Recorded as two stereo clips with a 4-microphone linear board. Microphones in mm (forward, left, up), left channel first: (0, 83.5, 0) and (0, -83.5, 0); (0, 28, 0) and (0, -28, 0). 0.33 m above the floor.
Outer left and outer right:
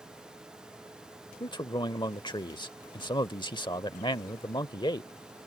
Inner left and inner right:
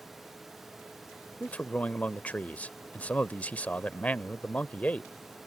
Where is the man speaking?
25° left (ahead or behind).